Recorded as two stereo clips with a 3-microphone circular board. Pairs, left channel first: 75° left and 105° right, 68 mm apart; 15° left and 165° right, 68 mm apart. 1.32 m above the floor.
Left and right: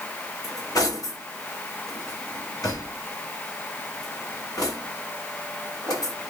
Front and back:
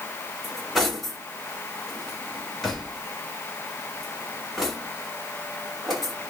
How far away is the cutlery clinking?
About 1.7 m.